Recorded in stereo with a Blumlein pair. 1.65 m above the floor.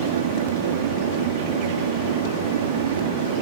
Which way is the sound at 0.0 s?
55° right.